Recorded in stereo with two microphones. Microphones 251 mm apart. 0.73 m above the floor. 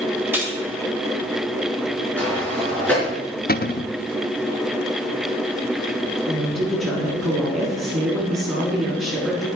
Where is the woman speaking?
Centre (ahead or behind), 6 m.